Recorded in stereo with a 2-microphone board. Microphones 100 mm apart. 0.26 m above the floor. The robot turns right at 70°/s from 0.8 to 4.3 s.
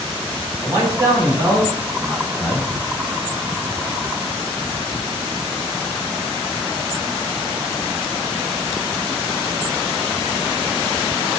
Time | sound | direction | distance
0.6 | a man speaking | 135° right | 2.0 m